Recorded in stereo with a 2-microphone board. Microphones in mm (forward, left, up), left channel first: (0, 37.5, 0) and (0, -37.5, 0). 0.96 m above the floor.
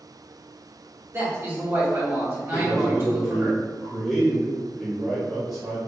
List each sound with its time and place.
1.1 s a man speaking: 35° right (ahead or behind), 1.2 m
2.5 s a man speaking: centre (ahead or behind), 1.3 m